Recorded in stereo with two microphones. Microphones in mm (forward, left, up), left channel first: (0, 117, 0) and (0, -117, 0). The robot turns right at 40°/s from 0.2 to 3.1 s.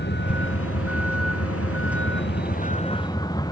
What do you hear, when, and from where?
0.0 s a vehicle: 50° left; by 3.5 s 165° left